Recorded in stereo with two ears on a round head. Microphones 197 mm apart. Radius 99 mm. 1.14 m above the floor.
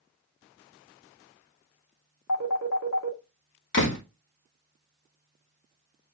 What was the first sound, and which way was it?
A phone ringing, 85° left.